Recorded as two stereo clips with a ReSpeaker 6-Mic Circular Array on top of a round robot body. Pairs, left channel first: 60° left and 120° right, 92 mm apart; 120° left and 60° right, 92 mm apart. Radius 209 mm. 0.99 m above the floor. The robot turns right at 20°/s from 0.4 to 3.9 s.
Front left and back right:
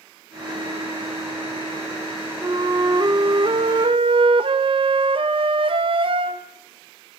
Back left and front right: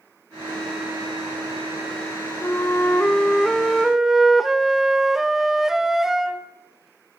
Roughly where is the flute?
Behind.